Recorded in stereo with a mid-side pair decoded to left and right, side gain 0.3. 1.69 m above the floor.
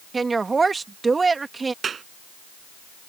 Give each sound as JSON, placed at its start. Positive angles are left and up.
{"t": 0.1, "sound": "a woman speaking", "azimuth_deg": -45}
{"t": 1.8, "sound": "a clap", "azimuth_deg": -65}